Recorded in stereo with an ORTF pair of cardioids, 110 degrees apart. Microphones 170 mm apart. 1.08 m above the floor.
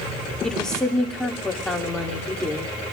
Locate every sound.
0.4 s a woman speaking: 5° left, 2 m